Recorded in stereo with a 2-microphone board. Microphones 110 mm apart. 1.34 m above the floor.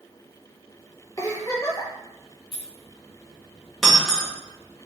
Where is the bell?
I don't hear a bell.